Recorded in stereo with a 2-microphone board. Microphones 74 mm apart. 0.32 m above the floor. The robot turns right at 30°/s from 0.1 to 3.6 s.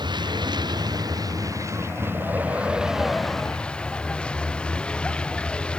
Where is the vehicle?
90° right; by 5.8 s 15° left.